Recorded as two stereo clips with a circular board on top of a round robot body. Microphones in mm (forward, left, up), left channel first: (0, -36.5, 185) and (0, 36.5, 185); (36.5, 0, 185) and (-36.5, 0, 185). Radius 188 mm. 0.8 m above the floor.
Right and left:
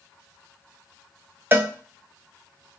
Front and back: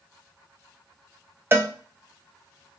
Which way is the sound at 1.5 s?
140° left.